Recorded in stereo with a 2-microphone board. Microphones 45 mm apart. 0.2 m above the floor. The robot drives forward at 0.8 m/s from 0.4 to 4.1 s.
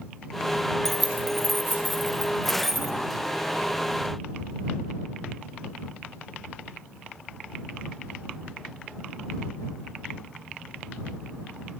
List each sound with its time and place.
0.8 s keys jangling: 5° left (ahead or behind), 2.5 m